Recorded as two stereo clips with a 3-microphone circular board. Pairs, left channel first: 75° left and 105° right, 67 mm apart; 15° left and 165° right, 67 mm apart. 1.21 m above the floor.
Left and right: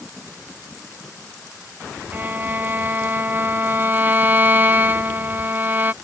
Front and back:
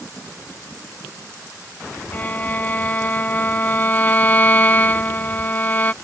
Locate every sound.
2.1 s a violin: 45° right